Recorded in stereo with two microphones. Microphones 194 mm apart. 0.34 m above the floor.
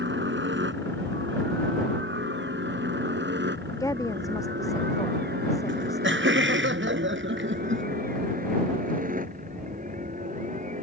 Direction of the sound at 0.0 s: 70° right (ahead or behind).